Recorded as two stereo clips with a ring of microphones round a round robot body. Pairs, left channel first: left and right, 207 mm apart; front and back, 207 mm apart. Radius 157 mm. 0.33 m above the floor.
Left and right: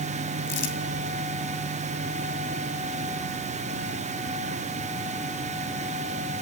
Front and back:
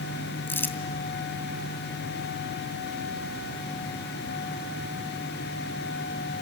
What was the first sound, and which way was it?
Crumpling, 80° left.